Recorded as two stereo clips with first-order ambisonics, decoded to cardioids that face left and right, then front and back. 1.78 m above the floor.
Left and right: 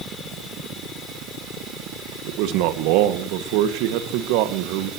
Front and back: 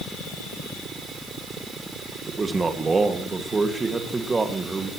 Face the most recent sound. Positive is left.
turn(degrees=-105)